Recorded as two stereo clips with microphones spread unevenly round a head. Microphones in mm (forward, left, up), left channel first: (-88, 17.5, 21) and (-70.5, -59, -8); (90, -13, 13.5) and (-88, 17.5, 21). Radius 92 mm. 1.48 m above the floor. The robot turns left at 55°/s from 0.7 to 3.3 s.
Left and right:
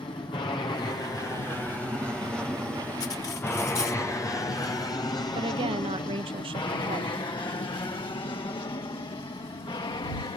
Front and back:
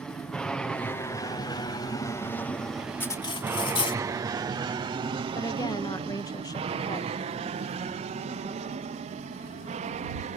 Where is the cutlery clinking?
70° left; by 4.0 s 55° left.